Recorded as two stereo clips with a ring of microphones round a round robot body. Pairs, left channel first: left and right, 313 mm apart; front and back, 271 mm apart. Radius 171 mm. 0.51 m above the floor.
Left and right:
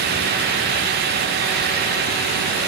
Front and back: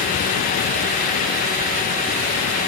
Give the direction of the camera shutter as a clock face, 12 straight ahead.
I don't hear a camera shutter.